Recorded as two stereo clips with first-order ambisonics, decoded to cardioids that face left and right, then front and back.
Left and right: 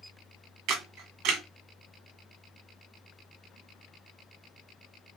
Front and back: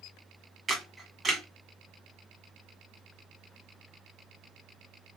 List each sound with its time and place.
0.7 s a camera shutter: 105° right, 1.7 m